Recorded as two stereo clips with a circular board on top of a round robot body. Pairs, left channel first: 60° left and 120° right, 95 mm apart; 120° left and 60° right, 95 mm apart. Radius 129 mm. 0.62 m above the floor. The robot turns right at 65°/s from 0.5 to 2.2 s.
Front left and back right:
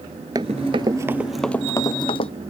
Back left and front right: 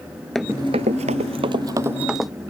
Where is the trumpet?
I don't hear a trumpet.